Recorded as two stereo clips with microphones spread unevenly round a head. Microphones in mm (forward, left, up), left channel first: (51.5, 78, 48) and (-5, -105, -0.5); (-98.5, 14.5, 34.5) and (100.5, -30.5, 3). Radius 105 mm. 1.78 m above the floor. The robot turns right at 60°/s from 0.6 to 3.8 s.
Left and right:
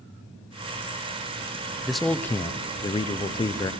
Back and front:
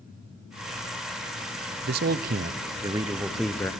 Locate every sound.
1.9 s a man speaking: straight ahead, 0.5 m; by 3.7 s 110° left, 0.5 m